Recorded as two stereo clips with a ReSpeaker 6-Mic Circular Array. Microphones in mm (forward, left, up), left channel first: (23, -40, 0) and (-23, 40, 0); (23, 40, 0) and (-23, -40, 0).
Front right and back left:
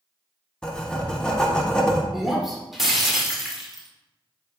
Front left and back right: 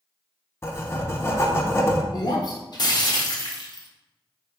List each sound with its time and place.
0.6 s writing: 15° left, 0.6 m
2.1 s breaking glass: 35° left, 0.8 m